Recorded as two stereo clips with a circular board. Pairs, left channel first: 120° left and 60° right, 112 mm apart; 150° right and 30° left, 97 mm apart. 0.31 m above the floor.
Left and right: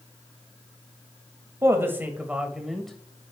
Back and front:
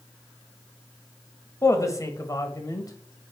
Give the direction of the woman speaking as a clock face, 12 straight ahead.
4 o'clock.